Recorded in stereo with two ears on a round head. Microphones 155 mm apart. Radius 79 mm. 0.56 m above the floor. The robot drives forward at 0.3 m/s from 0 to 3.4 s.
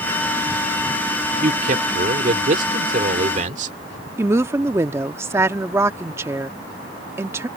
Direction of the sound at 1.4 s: 50° right (ahead or behind).